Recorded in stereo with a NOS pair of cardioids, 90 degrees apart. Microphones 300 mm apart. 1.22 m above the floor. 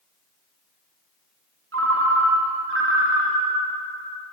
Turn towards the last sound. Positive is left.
turn(degrees=-45)